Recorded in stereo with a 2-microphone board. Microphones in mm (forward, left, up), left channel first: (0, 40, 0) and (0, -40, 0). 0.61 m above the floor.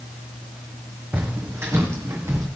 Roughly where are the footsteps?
Right.